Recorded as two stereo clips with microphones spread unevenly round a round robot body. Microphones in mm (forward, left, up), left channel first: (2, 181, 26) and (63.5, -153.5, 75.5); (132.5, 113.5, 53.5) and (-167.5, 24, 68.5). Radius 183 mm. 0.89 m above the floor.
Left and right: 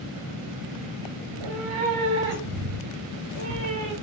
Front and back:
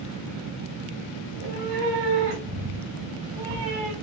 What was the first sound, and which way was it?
A cat meowing, 105° right.